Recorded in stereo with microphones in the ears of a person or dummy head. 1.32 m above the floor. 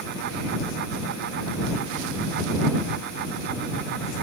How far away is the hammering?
No hammering in this recording.